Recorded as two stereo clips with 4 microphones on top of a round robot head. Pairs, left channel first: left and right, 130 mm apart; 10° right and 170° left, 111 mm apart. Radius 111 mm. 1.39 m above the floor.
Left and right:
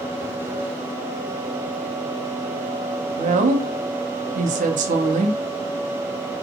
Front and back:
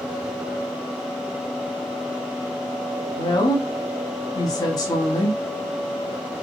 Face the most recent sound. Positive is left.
turn(degrees=-70)